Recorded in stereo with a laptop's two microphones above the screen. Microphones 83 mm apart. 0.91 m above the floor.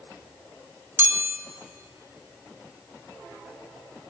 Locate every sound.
1.0 s a chime: 25° right (ahead or behind), 2 m